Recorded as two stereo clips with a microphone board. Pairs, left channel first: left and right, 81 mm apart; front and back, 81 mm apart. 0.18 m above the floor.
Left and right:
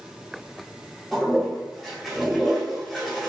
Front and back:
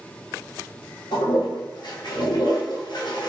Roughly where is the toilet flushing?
Ahead.